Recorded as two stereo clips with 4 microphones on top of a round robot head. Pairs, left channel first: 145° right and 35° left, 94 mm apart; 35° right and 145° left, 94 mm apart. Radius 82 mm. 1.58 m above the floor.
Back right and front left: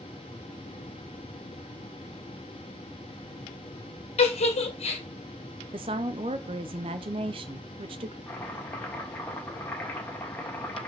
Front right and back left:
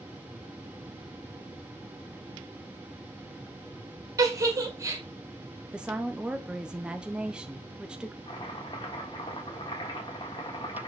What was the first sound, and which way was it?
A giggle, 155° right.